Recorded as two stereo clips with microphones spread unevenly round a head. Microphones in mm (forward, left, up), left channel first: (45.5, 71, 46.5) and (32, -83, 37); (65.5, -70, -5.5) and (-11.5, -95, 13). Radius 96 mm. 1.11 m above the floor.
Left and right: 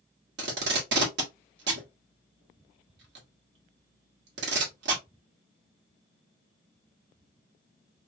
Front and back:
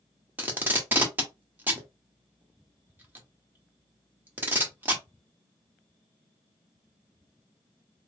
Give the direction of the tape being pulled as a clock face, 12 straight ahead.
3 o'clock.